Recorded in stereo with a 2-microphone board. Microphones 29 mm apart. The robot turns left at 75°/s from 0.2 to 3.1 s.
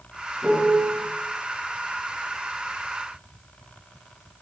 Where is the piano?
130° right, 7.5 m; by 1.0 s 175° right, 7.5 m.